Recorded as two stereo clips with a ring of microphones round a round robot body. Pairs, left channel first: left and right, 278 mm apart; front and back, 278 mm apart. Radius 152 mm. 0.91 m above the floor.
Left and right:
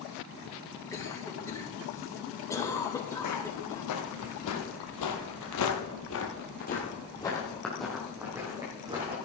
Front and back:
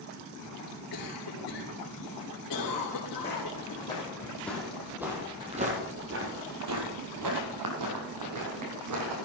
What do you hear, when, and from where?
0.9 s a cough: 10° left, 3.5 m
3.2 s footsteps: 70° left, 3 m; by 9.1 s 165° right, 3 m